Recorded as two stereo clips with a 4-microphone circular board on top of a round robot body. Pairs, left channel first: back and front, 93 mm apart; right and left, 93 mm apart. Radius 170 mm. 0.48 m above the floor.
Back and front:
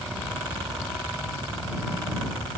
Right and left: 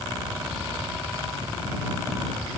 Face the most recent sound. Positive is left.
No sound to turn to.